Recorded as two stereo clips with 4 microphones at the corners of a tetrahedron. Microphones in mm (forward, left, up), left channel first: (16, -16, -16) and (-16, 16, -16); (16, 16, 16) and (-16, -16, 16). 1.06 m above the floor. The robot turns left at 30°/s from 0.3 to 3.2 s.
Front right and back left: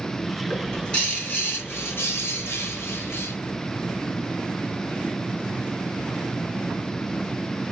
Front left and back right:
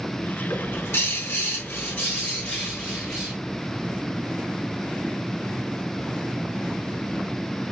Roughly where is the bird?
Ahead left.